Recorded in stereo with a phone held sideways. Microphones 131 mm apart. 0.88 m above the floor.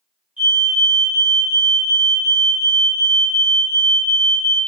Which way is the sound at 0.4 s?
10° right (ahead or behind).